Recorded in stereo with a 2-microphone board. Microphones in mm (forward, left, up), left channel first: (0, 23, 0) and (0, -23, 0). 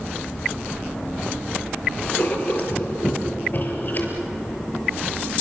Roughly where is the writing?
Left.